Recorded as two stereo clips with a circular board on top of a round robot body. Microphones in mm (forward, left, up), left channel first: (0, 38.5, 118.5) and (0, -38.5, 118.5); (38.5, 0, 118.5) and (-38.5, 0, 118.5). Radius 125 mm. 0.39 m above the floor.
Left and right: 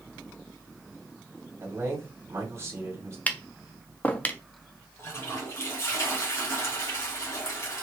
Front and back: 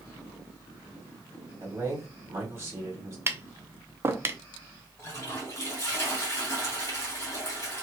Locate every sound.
1.6 s a man speaking: 135° right, 1.8 m
3.3 s tapping: 145° left, 0.7 m
5.0 s a toilet flushing: 50° left, 1.9 m